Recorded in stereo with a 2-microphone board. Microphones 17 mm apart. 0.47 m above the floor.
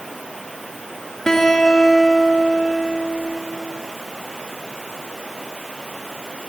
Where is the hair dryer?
I don't hear a hair dryer.